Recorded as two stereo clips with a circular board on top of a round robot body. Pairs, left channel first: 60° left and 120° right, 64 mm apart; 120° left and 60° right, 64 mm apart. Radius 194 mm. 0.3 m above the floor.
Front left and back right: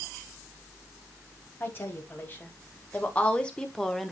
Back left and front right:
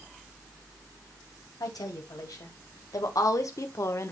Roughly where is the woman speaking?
Behind left.